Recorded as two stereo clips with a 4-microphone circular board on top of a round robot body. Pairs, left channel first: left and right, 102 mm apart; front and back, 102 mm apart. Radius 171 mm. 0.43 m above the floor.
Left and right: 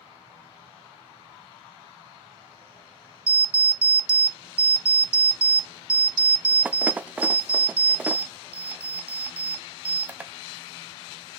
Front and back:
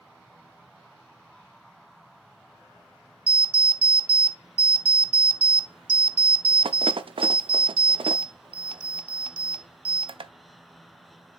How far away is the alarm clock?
About 0.7 m.